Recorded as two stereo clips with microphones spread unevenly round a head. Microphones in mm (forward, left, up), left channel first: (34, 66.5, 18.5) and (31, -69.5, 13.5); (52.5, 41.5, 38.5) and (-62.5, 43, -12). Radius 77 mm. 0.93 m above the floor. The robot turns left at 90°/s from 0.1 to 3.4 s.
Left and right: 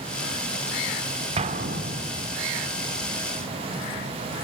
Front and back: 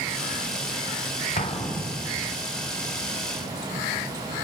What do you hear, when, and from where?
1.4 s an explosion: 50° right, 2.5 m; by 2.3 s 140° right, 2.5 m